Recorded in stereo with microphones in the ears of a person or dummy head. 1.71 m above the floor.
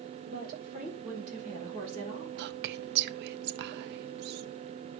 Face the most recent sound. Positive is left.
turn(degrees=-60)  # may be behind; listen again after turning